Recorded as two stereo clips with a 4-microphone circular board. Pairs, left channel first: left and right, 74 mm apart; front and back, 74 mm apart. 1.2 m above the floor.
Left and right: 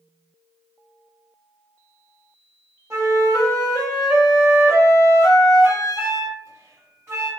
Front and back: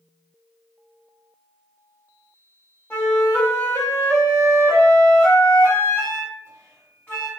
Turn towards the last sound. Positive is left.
turn(degrees=-50)